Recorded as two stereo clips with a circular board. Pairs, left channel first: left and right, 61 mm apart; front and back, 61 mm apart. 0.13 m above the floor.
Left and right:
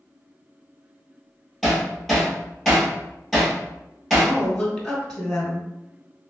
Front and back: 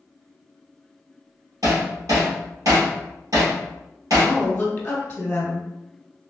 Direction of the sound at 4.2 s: 20° left.